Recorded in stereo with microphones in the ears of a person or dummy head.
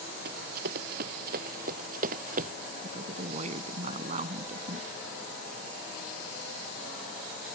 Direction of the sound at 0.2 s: 55° right (ahead or behind).